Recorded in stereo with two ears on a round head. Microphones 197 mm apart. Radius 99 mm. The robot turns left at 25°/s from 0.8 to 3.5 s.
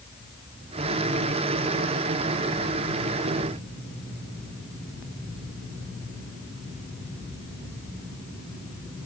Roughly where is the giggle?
No giggle in this recording.